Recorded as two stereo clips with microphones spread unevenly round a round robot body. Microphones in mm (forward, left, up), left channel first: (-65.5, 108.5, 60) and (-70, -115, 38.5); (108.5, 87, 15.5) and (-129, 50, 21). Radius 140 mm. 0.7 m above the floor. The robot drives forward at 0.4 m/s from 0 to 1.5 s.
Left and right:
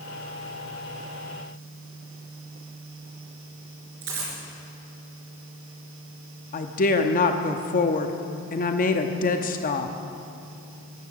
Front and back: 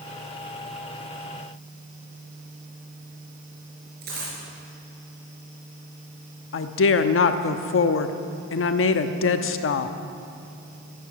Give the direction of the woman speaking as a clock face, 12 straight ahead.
11 o'clock.